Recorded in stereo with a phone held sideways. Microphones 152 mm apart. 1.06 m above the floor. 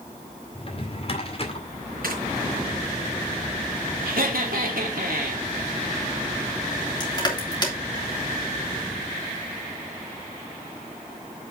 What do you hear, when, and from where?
0.6 s a drawer: 40° left (ahead or behind), 2 m
2.0 s tearing paper: 75° right (ahead or behind), 4 m
4.0 s laughter: 75° right (ahead or behind), 2.5 m
7.0 s crushing: 30° left (ahead or behind), 3 m